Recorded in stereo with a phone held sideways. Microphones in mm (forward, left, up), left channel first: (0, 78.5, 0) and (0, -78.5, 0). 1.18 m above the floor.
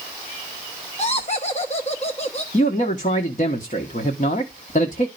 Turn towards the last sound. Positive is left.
turn(degrees=55)  # may be behind; listen again after turning